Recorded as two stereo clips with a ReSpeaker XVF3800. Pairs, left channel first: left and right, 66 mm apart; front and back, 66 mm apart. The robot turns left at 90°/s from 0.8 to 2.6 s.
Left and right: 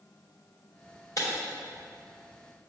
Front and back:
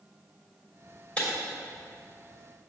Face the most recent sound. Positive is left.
turn(degrees=-60)